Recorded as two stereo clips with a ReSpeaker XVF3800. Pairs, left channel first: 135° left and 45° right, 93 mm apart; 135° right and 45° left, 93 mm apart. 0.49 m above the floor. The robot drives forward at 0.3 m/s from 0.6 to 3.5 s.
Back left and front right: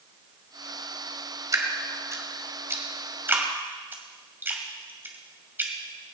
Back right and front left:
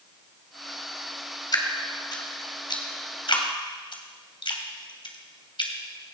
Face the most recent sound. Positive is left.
turn(degrees=-110)